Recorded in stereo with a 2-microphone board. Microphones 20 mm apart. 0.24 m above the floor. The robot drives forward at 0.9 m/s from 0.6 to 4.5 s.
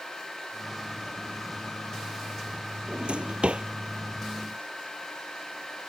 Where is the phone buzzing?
I don't hear a phone buzzing.